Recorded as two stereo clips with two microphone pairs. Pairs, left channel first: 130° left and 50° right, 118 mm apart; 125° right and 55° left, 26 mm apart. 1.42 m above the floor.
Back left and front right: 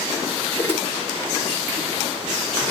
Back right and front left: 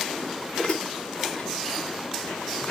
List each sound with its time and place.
0.6 s dishes clattering: 160° right, 2 m